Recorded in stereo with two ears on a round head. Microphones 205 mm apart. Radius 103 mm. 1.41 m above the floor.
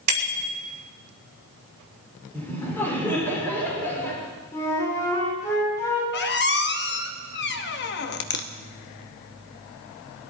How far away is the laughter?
About 6 m.